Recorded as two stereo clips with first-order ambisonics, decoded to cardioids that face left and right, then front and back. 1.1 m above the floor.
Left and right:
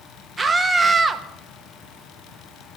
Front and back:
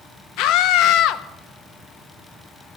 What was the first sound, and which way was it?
A scream, 10° right.